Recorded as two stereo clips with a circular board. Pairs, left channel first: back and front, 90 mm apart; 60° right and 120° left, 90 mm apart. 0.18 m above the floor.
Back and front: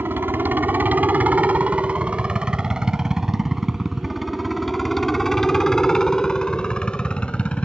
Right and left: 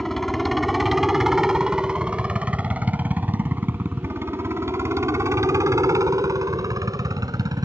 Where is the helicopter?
25° left; by 7.7 s 110° left.